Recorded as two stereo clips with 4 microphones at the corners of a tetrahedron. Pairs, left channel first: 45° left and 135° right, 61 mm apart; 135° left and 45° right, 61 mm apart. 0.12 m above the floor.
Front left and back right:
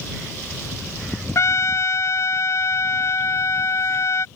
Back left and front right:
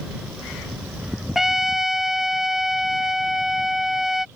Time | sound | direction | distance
1.4 | a trumpet | 40° left | ?